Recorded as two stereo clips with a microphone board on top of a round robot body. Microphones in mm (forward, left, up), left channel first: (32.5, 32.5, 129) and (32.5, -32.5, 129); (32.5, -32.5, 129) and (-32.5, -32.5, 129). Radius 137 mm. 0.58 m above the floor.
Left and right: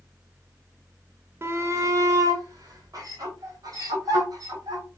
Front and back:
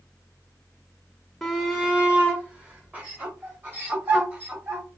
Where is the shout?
90° right, 0.9 m; by 4.8 s 120° right, 2.5 m.